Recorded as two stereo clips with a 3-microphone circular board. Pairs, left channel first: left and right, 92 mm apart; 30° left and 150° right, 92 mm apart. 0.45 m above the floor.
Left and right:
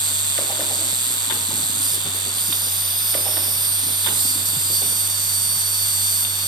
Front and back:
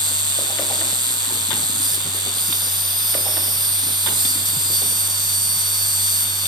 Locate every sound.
0.0 s an insect: 120° right